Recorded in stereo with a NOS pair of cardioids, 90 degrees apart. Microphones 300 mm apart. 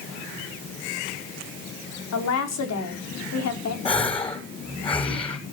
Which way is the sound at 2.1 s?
60° left.